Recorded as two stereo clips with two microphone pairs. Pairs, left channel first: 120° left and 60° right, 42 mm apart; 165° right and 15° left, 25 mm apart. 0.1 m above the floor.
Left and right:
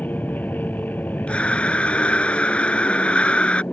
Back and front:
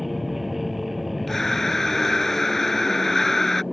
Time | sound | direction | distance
0.0 | an aircraft | 95° left | ?
1.3 | breathing | 125° left | ?